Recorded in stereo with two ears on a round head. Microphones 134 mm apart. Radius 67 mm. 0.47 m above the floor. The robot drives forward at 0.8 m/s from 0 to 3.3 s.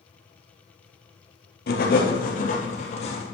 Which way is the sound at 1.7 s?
70° left (ahead or behind).